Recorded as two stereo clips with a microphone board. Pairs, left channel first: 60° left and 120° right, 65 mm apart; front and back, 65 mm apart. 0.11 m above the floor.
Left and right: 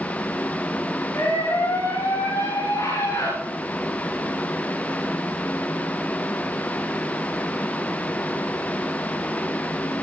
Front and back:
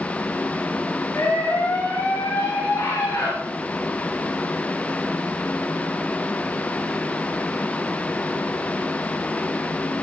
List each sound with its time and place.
1.1 s a scream: 60° left, 9.5 m; by 3.3 s 65° left, 10.5 m